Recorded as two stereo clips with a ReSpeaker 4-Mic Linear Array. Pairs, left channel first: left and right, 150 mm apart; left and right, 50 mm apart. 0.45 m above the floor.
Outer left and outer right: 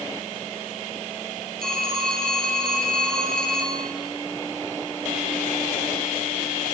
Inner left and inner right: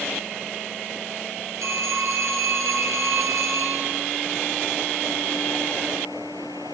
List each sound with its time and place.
1.6 s a phone ringing: 80° right, 5 m